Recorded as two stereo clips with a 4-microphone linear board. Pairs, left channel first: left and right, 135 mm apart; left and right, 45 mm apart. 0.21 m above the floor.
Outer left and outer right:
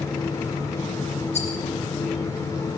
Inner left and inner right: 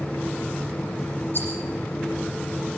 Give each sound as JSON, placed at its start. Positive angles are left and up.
{"t": 1.3, "sound": "a rattle", "side_deg": 55, "distance_m": 9.5}